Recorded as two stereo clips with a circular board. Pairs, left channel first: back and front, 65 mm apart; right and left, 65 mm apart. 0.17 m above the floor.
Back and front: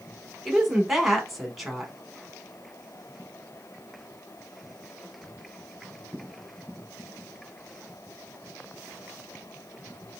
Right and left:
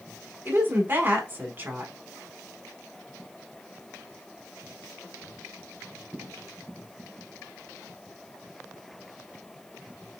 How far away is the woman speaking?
About 1.1 m.